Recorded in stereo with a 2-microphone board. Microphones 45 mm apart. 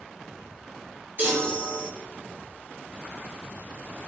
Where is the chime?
40° right (ahead or behind), 3.5 m.